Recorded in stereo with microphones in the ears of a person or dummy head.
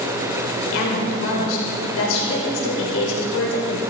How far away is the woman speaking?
About 5 m.